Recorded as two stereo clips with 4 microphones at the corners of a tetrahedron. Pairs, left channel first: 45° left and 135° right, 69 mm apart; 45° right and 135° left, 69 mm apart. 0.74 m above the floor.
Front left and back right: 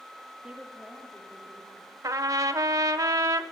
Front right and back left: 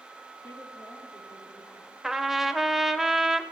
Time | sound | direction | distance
0.4 | a woman speaking | 70° right | 1.4 m
2.0 | a trumpet | 140° right | 0.6 m